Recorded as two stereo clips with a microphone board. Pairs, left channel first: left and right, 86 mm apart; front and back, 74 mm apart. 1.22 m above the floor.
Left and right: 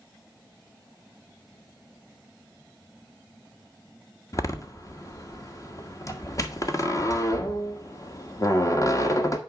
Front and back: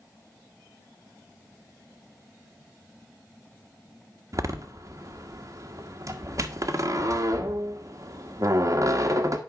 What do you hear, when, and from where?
4.3 s a door slam: 140° left, 1.2 m